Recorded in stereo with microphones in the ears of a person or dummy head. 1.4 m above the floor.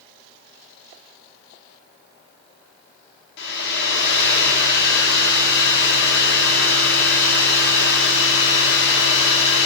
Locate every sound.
3.4 s a hair dryer: 65° left (ahead or behind), 2 m